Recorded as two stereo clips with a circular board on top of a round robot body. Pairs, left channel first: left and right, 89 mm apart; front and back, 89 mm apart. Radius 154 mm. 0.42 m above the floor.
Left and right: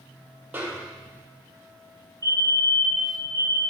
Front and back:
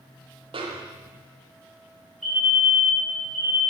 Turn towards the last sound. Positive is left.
turn(degrees=-85)